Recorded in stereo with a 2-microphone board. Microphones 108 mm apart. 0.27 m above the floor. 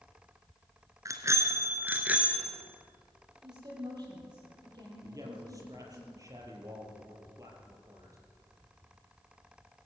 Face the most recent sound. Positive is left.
turn(degrees=-30)  # may be behind; listen again after turning